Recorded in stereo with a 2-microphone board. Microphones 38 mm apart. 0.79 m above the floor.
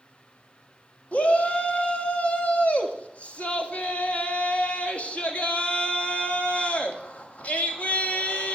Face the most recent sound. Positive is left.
turn(degrees=40)  # may be behind; listen again after turning